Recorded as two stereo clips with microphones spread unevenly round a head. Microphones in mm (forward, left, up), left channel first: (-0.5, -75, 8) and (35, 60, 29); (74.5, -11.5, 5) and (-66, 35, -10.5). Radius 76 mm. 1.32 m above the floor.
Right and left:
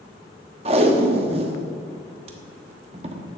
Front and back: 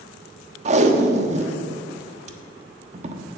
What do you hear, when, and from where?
0.7 s tape being pulled: 115° left, 1.1 m